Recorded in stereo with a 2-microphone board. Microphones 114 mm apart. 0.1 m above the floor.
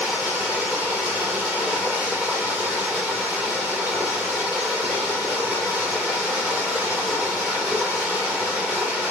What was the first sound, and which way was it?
Running water, 10° right (ahead or behind).